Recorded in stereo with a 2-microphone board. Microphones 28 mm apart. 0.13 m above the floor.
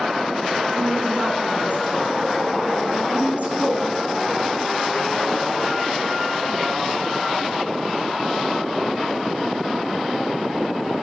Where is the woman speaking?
55° right (ahead or behind), 6 m.